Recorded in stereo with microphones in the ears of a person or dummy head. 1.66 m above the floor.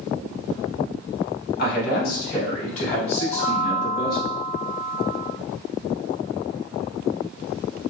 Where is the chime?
30° left (ahead or behind), 1.6 m.